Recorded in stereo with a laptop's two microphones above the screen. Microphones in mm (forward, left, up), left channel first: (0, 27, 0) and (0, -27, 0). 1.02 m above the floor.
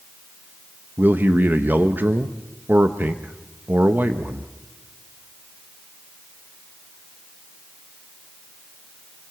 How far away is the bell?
No bell in this recording.